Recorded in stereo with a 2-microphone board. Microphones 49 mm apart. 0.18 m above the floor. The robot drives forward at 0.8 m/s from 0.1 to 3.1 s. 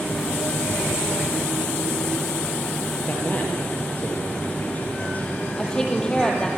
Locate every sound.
3.1 s a man speaking: 35° left (ahead or behind), 4.5 m
5.6 s a woman speaking: 15° left (ahead or behind), 4.5 m